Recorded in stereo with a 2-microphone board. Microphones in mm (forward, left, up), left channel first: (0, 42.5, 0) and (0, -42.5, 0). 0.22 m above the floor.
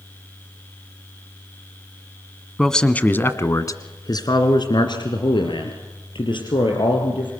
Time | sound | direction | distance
2.6 | a man speaking | 5° left (ahead or behind) | 1.5 m